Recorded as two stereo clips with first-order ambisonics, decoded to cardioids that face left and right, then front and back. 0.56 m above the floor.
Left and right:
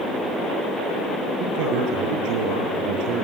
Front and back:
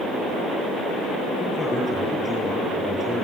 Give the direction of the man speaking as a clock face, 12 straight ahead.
3 o'clock.